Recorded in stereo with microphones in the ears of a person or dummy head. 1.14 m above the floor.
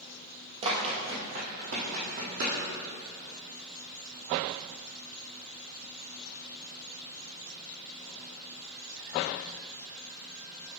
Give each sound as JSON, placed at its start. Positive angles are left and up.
{"t": 0.6, "sound": "running footsteps", "side_deg": -30, "distance_m": 2.0}